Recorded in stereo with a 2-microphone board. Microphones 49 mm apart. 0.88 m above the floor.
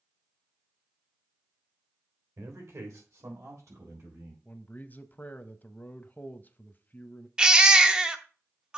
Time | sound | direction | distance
2.4 | a man speaking | 80° right | 3 m
4.5 | a man speaking | 35° left (ahead or behind) | 0.7 m
7.4 | a baby crying | 15° right (ahead or behind) | 0.7 m